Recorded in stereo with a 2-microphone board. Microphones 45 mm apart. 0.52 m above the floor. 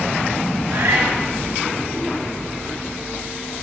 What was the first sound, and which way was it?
A cat meowing, 65° right (ahead or behind).